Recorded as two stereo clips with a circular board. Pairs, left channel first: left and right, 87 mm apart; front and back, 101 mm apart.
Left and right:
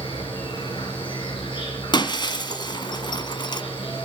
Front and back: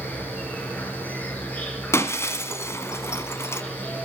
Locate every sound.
0.0 s an insect: 75° left, 4.5 m
1.9 s breaking glass: 60° left, 1.6 m